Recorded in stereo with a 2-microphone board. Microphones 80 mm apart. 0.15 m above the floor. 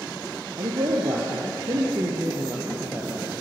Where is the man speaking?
65° right (ahead or behind), 3.5 m; by 3.3 s 25° right (ahead or behind), 3 m.